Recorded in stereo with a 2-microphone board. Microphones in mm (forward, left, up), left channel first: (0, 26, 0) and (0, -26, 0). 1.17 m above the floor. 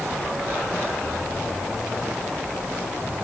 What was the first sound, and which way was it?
Only background noise.